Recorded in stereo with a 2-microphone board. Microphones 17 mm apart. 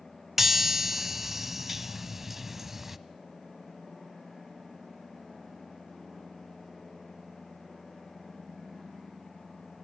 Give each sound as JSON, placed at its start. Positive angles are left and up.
{"t": 0.4, "sound": "a chime", "side_deg": -20, "distance_m": 1.0}